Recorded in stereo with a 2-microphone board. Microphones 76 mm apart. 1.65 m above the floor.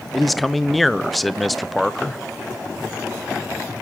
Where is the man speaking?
Centre (ahead or behind), 0.8 m.